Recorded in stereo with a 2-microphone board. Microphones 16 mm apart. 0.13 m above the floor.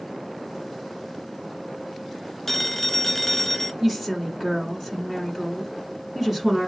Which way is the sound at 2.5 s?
10° left (ahead or behind).